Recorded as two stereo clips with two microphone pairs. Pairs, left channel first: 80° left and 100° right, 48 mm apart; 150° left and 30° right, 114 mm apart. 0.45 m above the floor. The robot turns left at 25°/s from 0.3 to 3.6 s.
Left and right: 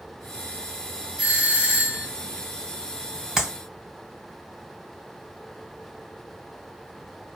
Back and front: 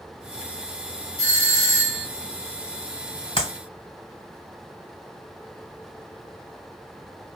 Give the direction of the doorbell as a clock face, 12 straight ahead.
2 o'clock.